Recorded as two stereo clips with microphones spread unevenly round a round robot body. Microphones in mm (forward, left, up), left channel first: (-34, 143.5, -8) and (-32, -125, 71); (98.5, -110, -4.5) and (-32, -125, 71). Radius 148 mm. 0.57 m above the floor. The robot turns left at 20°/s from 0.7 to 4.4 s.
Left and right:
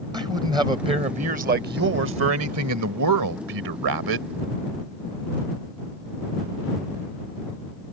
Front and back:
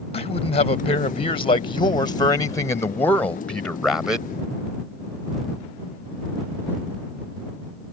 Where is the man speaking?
10° right; by 4.3 s 80° right.